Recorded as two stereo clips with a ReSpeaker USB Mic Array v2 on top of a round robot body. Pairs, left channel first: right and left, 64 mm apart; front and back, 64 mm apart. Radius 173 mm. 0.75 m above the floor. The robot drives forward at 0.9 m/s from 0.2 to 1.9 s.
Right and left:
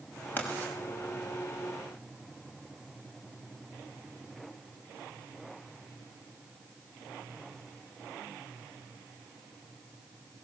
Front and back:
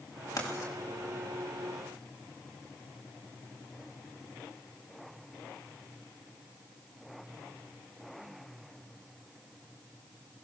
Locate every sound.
0.4 s writing: 30° right, 6 m